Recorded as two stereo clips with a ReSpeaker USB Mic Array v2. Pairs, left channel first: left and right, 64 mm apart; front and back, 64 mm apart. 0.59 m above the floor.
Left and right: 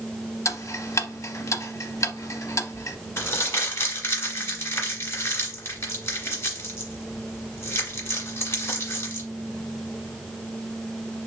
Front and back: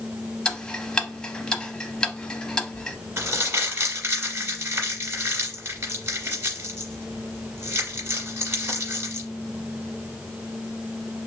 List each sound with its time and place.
0.5 s ticking: 75° left, 0.6 m
3.2 s crumpling: 135° left, 1.6 m